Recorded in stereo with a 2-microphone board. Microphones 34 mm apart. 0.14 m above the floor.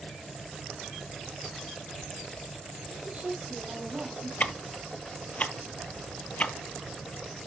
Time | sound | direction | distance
2.9 | a woman speaking | 40° right (ahead or behind) | 5.5 m
4.4 | ticking | 45° left (ahead or behind) | 0.5 m